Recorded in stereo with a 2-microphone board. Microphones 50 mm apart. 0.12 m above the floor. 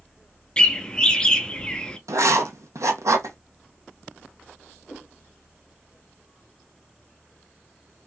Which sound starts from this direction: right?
Writing, at 2.1 s.